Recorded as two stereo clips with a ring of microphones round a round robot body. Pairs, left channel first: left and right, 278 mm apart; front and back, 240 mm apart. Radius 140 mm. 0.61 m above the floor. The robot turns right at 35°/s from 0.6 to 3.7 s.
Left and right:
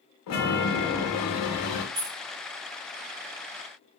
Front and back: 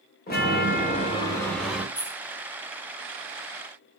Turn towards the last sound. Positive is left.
turn(degrees=-25)